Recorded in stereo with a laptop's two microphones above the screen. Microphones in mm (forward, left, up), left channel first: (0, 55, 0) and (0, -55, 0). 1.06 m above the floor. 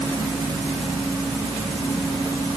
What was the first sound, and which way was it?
Only background noise.